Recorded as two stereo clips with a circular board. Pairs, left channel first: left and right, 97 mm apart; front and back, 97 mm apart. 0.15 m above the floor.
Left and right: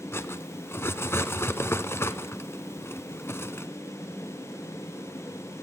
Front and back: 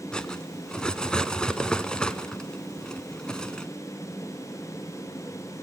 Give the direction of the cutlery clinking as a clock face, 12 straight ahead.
10 o'clock.